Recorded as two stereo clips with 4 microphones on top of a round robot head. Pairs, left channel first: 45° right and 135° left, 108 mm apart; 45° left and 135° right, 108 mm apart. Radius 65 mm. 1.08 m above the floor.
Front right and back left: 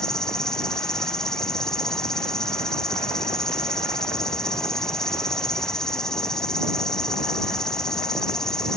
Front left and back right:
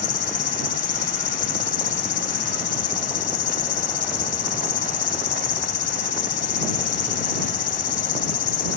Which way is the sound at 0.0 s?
40° left.